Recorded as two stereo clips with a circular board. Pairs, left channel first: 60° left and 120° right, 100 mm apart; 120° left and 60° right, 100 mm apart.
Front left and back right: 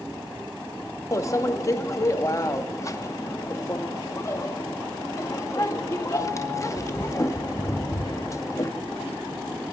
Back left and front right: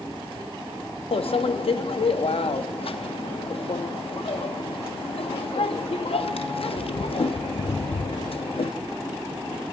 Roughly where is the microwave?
Behind left.